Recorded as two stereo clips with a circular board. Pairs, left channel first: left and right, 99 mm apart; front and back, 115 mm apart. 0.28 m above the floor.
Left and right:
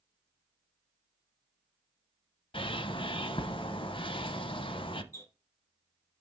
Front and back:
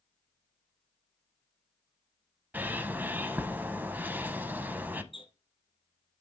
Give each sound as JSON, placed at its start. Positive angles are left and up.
{"t": 2.5, "sound": "a bird", "azimuth_deg": 105, "distance_m": 0.6}
{"t": 5.1, "sound": "a squeak", "azimuth_deg": 35, "distance_m": 1.4}